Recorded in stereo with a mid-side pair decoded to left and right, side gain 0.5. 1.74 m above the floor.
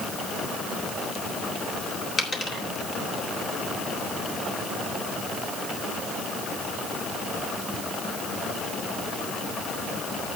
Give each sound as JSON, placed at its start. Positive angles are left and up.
{"t": 2.2, "sound": "a dropped coin", "azimuth_deg": 35, "distance_m": 3.5}